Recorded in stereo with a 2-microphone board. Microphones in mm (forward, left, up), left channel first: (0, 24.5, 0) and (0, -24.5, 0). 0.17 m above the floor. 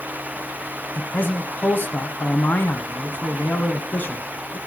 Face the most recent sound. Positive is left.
turn(degrees=35)  # may be behind; listen again after turning